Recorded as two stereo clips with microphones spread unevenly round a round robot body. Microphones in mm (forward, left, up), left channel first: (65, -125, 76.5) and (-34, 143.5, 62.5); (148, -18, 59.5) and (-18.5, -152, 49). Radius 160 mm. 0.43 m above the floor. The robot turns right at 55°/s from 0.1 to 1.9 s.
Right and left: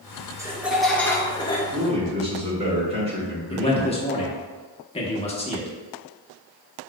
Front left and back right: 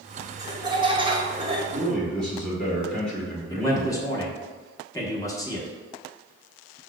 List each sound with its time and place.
0.4 s laughter: 170° left, 0.9 m; by 1.6 s 120° right, 0.9 m
1.7 s a man speaking: 120° left, 1.3 m; by 3.9 s 130° left, 1.3 m
3.5 s a man speaking: 25° right, 1.0 m